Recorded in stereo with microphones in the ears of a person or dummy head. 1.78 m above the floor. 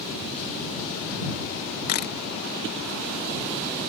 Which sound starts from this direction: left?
A camera shutter, at 1.9 s.